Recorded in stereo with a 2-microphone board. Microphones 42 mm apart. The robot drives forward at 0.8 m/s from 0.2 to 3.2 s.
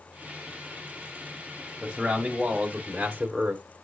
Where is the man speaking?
20° right (ahead or behind), 1.6 m; by 3.6 s 30° right (ahead or behind), 1.0 m.